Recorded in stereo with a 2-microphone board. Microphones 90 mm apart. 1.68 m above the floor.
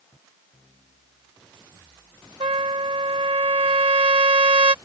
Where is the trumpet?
85° right.